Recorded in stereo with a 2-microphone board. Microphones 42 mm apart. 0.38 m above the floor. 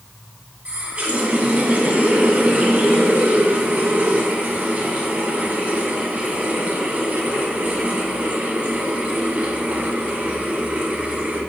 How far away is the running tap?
About 2 m.